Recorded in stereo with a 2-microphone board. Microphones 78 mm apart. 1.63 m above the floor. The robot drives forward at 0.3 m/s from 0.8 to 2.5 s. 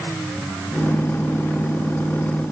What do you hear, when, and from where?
Only background noise.